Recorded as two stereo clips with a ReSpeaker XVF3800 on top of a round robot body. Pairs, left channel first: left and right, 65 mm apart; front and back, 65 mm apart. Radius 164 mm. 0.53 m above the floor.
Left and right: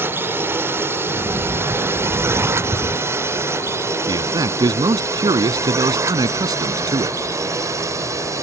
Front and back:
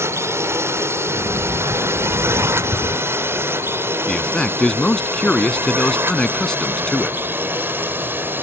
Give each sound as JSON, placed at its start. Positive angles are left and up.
{"t": 0.0, "sound": "a drone", "azimuth_deg": -140}
{"t": 1.1, "sound": "a sliding door", "azimuth_deg": -140}
{"t": 4.1, "sound": "a man speaking", "azimuth_deg": -80}